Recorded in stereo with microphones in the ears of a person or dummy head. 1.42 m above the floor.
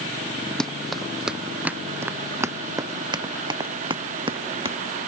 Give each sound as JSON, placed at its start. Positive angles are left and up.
{"t": 0.6, "sound": "running footsteps", "side_deg": 0}